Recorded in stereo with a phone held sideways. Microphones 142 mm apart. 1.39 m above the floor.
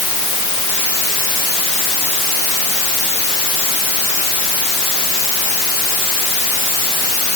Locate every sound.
Only background noise.